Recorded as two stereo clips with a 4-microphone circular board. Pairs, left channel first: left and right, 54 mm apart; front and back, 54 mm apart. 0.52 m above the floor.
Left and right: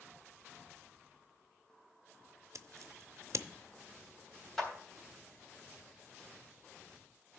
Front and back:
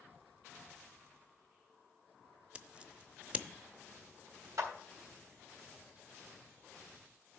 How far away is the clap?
About 3 m.